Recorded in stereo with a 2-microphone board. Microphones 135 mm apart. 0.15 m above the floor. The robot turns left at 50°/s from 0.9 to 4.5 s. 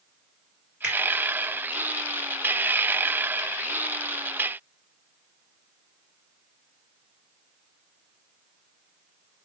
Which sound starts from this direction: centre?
A finger snap, at 0.8 s.